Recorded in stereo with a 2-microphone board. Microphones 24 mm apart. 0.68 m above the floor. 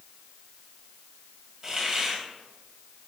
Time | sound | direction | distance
1.6 | a hiss | 25° right (ahead or behind) | 2.5 m